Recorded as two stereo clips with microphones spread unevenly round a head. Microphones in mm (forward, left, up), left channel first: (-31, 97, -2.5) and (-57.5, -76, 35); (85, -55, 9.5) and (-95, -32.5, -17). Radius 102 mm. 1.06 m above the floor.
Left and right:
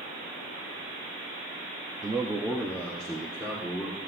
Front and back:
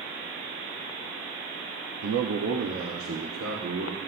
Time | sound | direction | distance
2.0 | a man speaking | 170° right | 1.1 m